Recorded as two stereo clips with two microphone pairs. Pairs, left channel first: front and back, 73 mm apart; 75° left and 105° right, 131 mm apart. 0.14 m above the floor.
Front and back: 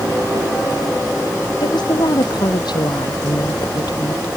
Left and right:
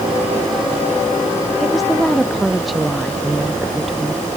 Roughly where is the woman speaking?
Ahead.